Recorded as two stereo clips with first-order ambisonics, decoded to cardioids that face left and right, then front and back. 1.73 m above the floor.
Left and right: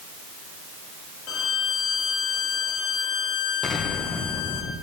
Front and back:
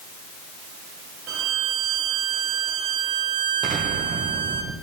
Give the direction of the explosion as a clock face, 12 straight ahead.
7 o'clock.